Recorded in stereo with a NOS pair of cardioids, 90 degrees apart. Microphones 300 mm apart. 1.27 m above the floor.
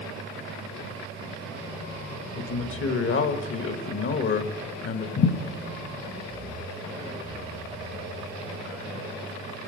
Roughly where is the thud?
Ahead left.